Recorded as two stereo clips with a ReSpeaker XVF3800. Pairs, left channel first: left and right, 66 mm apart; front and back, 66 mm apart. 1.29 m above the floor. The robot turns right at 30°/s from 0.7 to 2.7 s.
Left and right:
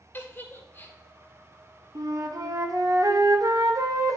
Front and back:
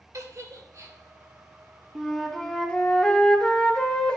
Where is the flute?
100° right, 0.9 m; by 4.2 s 75° right, 0.9 m.